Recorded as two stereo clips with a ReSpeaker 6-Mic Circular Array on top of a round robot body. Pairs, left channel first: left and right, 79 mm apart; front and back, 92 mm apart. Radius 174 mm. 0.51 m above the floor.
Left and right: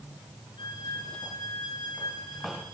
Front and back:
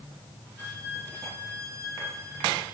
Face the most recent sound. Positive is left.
turn(degrees=120)